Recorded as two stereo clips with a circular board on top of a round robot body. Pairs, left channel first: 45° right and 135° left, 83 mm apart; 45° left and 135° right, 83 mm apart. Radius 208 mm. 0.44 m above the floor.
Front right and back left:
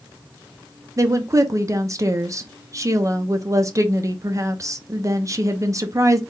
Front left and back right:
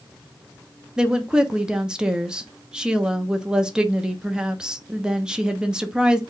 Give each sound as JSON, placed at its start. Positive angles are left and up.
{"t": 1.0, "sound": "a woman speaking", "azimuth_deg": 145, "distance_m": 1.0}